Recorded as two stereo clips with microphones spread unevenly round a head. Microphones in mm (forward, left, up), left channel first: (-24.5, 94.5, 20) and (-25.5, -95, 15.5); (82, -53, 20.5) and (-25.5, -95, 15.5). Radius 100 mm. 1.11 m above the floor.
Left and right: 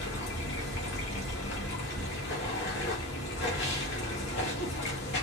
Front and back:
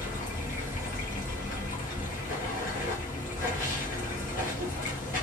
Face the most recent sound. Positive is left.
turn(degrees=50)